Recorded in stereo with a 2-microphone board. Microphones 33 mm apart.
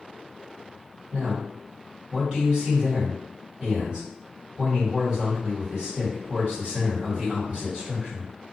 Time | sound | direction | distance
1.1 | a man speaking | 35° right (ahead or behind) | 1.6 m